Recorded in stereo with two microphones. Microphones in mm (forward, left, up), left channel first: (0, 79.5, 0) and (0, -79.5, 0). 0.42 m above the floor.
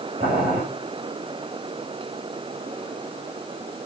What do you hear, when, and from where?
0.2 s boiling: 70° right (ahead or behind), 6 m